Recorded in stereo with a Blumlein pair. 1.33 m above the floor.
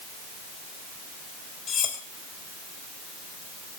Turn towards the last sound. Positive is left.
turn(degrees=25)